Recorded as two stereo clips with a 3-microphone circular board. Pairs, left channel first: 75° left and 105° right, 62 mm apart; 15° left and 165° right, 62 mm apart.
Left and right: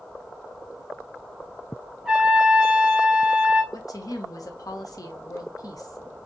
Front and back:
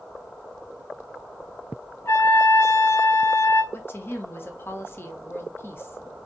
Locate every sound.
2.0 s a trumpet: 25° right, 1.6 m
3.7 s a woman speaking: 65° left, 0.9 m